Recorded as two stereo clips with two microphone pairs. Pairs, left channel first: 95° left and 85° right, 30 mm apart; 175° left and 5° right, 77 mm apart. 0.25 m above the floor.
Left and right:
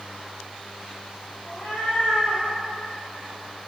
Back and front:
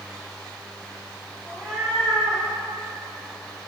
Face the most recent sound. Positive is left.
turn(degrees=90)